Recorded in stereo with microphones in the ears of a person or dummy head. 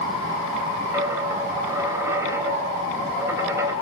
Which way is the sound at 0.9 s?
15° right (ahead or behind).